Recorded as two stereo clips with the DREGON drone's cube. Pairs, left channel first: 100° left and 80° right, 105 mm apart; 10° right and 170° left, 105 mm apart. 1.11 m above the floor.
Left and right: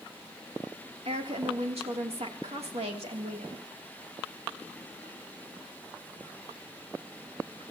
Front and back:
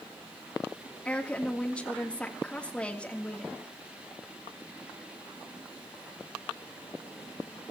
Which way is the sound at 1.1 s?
90° right.